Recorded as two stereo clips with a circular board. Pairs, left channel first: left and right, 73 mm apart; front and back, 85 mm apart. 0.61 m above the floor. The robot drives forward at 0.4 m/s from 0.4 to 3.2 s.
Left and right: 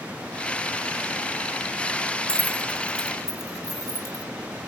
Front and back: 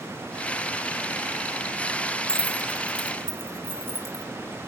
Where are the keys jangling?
100° right, 1.2 m; by 4.2 s 120° right, 1.3 m.